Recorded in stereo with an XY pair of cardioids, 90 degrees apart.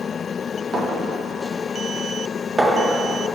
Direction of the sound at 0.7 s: 30° right.